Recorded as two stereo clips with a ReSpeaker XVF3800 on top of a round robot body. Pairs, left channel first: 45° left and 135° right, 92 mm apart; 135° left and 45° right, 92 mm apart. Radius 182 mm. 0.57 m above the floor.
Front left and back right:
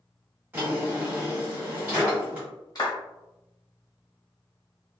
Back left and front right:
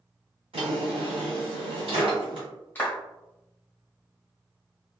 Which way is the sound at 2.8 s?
70° left.